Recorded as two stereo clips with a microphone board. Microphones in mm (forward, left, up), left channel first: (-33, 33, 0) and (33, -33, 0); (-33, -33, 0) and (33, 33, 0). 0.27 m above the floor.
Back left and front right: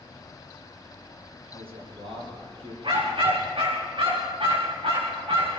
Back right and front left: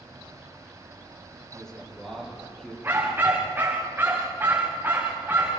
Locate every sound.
1.5 s a man speaking: 55° right, 8 m
2.8 s a dog barking: 20° right, 6.5 m